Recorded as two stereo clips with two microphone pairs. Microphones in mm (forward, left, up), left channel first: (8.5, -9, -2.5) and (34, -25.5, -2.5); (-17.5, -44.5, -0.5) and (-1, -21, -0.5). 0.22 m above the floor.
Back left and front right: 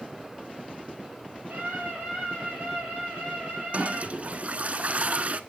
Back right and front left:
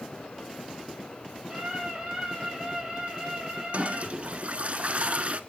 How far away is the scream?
About 6.5 m.